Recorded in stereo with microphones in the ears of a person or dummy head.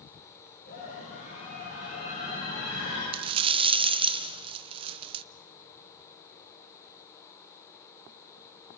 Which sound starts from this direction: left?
A scream, at 0.7 s.